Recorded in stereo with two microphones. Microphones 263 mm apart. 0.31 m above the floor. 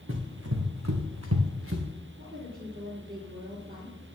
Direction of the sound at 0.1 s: 50° right (ahead or behind).